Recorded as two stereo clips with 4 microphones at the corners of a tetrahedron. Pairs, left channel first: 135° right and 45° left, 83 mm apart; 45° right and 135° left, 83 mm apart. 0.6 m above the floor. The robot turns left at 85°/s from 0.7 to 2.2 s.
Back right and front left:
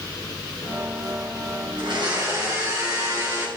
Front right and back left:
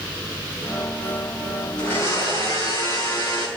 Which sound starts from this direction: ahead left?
A blender, at 1.8 s.